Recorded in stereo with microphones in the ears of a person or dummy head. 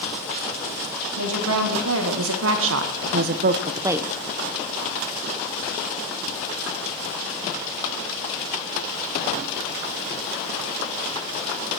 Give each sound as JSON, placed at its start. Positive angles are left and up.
{"t": 1.2, "sound": "a woman speaking", "side_deg": -80, "distance_m": 3.5}